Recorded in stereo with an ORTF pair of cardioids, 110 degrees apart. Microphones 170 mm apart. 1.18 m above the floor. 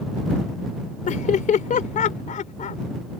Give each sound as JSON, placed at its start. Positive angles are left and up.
{"t": 1.1, "sound": "laughter", "azimuth_deg": 50}